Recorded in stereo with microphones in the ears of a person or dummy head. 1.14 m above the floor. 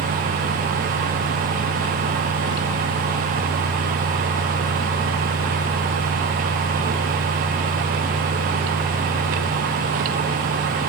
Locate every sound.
Only background noise.